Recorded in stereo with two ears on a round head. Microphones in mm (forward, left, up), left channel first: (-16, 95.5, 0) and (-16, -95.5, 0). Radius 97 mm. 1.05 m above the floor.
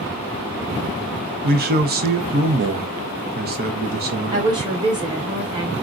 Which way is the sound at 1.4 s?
45° right (ahead or behind).